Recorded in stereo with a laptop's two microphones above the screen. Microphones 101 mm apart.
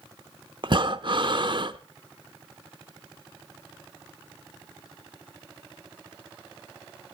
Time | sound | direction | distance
0.6 | breathing | 50° right (ahead or behind) | 0.8 m